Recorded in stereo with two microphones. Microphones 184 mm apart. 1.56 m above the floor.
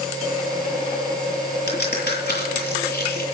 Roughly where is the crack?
Left.